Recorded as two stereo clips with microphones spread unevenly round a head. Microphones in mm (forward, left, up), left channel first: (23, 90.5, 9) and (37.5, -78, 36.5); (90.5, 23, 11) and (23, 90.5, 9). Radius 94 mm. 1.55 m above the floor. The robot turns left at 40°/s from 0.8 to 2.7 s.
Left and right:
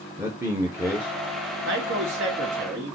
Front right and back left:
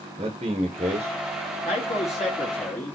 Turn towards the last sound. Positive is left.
turn(degrees=-115)